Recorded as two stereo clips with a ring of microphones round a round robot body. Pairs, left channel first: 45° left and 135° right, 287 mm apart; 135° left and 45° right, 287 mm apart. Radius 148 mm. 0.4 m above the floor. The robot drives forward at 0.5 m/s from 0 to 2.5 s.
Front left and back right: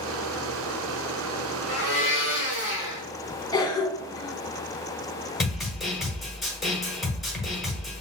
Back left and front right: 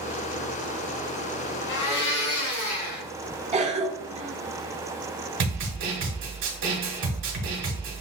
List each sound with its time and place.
1.7 s a blender: 160° left, 2.5 m
3.5 s a cough: 15° right, 0.8 m
5.4 s a snare drum: 45° right, 1.4 m